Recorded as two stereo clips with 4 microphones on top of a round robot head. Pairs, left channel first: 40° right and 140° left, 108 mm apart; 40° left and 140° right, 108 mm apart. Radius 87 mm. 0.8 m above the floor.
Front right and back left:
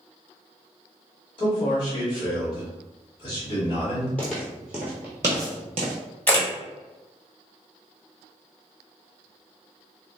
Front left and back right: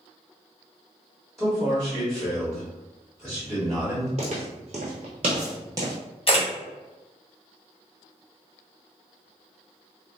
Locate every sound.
1.4 s a man speaking: 55° right, 1.3 m
4.2 s footsteps: 115° right, 1.1 m; by 5.9 s 155° left, 0.9 m
6.3 s a camera shutter: 35° left, 1.6 m